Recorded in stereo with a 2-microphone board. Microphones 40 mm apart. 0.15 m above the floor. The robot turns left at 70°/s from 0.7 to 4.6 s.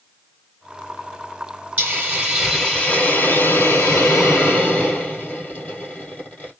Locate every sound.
1.8 s a hiss: 130° right, 2.5 m; by 6.5 s 30° left, 2.5 m